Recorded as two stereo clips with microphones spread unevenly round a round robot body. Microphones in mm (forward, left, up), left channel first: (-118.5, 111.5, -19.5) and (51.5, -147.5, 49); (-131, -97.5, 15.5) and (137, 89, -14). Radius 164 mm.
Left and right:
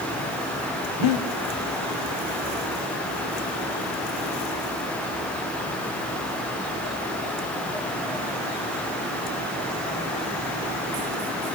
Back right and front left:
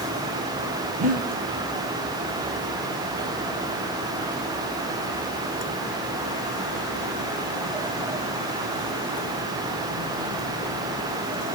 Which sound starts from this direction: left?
Breathing, at 1.0 s.